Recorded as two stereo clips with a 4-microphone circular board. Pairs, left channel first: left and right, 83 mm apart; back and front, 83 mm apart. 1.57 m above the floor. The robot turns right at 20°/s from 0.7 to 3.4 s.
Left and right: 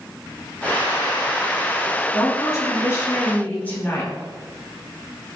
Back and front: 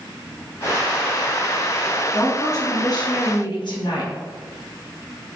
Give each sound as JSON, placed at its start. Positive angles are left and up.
{"t": 2.1, "sound": "a woman speaking", "azimuth_deg": 130, "distance_m": 3.5}